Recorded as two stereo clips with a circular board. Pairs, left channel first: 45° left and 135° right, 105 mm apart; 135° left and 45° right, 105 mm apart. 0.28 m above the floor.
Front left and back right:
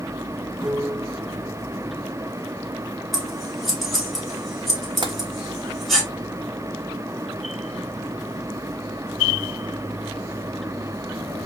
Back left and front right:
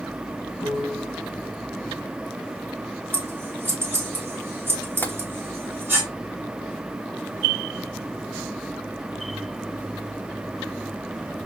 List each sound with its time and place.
0.6 s a piano: 110° left, 3 m
3.1 s scissors: 45° right, 1.5 m
5.0 s tapping: 160° right, 0.5 m